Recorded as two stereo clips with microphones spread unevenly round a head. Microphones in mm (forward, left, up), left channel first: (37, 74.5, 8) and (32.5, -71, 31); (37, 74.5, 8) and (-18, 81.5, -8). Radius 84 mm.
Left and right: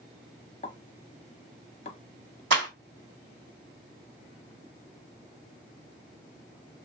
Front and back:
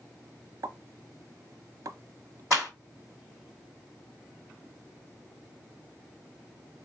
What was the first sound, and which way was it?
A pop, 145° left.